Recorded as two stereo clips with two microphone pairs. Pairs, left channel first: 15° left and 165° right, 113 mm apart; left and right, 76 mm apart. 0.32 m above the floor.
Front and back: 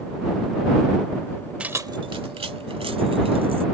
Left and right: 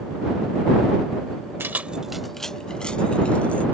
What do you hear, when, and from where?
1.6 s keys jangling: 100° right; by 3.6 s 165° left